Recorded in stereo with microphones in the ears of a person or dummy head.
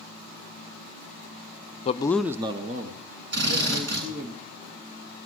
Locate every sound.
1.9 s a man speaking: 40° left (ahead or behind), 0.5 m; by 4.3 s 60° right (ahead or behind), 2 m
3.3 s a drill: 65° right (ahead or behind), 9 m